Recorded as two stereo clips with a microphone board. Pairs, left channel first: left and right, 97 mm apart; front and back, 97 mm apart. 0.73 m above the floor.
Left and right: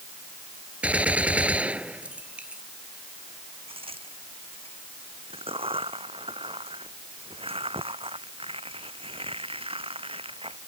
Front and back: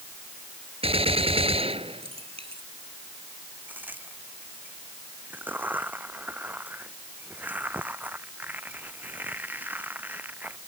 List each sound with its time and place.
0.8 s a gunshot: 165° right
3.7 s a crack: 110° right